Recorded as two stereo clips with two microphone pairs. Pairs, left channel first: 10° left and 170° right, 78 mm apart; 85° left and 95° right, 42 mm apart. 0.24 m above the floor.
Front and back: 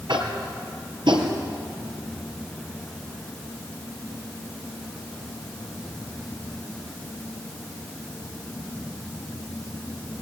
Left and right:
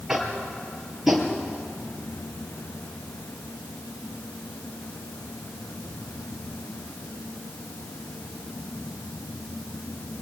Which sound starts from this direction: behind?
Tapping, at 0.1 s.